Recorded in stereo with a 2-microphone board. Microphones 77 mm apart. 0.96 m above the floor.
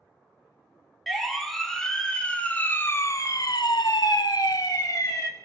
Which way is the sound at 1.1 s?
Centre (ahead or behind).